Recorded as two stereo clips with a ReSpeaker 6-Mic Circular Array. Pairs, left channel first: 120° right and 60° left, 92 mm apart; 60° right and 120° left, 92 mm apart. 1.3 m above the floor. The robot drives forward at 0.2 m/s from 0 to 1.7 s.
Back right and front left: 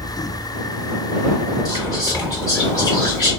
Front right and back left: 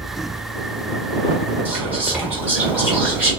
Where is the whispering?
170° right, 2 m.